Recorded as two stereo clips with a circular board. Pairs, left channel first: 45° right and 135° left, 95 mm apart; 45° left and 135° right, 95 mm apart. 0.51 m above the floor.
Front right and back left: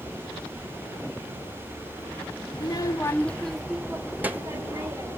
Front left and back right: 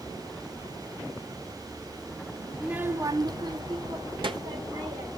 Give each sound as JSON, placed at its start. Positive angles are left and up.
{"t": 2.5, "sound": "a child speaking", "azimuth_deg": -55, "distance_m": 0.8}